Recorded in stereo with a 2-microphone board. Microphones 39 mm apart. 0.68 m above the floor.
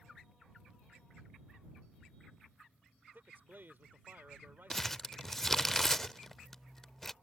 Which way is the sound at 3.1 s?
65° right (ahead or behind).